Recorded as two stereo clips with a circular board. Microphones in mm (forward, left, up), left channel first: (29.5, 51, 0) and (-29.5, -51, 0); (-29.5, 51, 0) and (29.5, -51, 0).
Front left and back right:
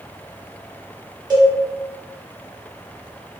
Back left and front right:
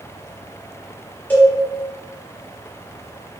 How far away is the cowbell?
About 0.7 m.